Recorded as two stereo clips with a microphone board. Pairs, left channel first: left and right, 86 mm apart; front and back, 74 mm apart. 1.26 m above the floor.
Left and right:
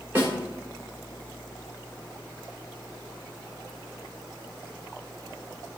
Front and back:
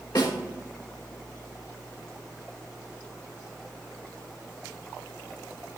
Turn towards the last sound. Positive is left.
turn(degrees=-25)